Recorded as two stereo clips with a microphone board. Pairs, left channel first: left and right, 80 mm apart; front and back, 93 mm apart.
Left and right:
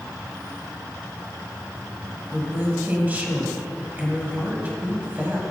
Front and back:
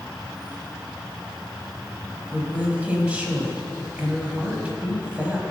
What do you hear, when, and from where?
0.0 s an insect: 95° right, 0.7 m
2.3 s a woman speaking: 125° right, 1.3 m